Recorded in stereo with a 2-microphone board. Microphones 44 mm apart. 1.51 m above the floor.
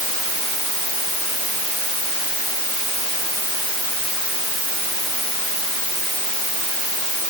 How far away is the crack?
No crack in this recording.